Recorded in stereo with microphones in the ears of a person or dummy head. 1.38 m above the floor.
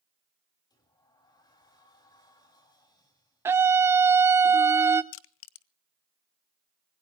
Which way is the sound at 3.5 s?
15° right (ahead or behind).